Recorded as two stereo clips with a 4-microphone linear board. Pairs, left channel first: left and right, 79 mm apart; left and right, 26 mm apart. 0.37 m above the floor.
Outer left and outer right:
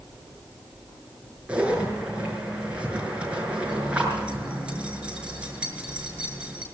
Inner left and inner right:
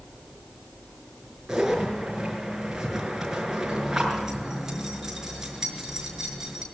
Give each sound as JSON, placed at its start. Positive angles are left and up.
{"t": 1.5, "sound": "a zipper", "side_deg": -15, "distance_m": 6.0}